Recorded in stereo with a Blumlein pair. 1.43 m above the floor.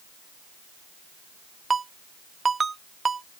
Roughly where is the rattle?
No rattle in this recording.